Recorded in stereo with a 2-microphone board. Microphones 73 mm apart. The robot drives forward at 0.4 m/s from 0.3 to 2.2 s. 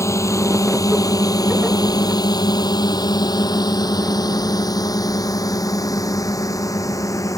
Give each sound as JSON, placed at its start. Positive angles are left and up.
{"t": 0.0, "sound": "a drone", "side_deg": 40}